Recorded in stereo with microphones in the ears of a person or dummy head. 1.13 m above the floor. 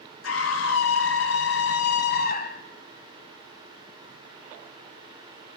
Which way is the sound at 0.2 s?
75° left (ahead or behind).